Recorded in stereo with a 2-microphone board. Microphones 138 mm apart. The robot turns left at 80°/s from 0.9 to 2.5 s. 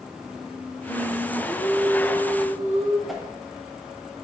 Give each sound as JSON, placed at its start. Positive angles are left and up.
{"t": 0.9, "sound": "singing", "azimuth_deg": 5, "distance_m": 0.9}
{"t": 3.1, "sound": "a whoosh", "side_deg": 0, "distance_m": 0.8}